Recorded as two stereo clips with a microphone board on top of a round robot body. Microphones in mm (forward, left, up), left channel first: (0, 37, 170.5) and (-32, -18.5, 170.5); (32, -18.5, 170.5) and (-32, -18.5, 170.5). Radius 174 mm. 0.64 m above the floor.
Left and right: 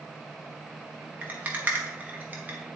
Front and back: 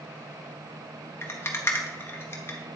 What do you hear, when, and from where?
1.2 s a rattle: 50° right, 1.0 m